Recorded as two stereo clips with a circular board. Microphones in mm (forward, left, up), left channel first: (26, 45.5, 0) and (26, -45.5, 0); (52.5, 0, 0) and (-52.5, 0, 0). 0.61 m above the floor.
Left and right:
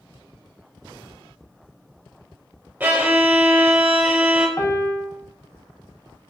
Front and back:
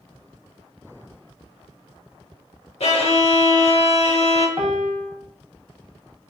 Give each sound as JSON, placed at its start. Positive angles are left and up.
{"t": 2.8, "sound": "a violin", "azimuth_deg": -20, "distance_m": 0.7}
{"t": 4.6, "sound": "a piano", "azimuth_deg": 145, "distance_m": 0.6}